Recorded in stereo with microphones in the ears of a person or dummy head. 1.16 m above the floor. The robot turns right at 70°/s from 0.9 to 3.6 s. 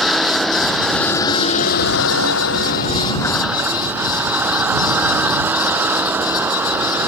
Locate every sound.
0.0 s a vehicle: straight ahead; by 7.1 s 170° right